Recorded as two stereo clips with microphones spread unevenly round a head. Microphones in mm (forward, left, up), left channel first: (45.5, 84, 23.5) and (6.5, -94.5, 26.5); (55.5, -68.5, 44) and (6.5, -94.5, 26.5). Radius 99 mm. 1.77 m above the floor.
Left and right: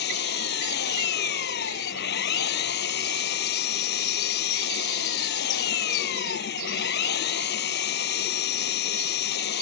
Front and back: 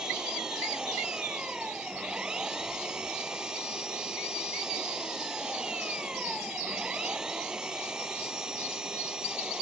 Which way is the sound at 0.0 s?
120° left.